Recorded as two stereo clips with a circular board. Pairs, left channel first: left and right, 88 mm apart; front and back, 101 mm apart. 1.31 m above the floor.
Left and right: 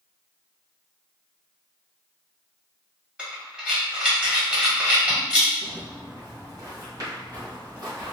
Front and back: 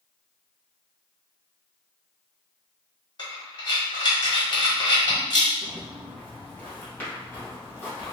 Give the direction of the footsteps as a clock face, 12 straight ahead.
2 o'clock.